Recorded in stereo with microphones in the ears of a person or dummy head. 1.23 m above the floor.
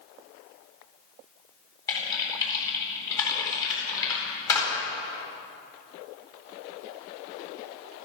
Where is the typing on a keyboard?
20° left (ahead or behind), 8.5 m.